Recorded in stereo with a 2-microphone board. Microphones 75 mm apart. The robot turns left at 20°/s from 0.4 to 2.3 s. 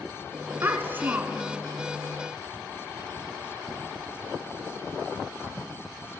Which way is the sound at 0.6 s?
35° right (ahead or behind).